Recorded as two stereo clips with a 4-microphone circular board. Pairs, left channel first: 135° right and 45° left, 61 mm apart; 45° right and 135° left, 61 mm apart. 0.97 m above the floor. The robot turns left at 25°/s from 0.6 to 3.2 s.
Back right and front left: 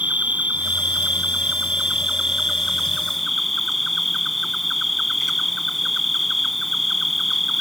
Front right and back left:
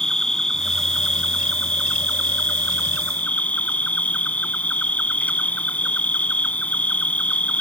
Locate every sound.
0.0 s an insect: 20° left; by 7.6 s 45° right